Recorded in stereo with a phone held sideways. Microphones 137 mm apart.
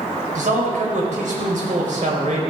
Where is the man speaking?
75° right (ahead or behind), 4 m.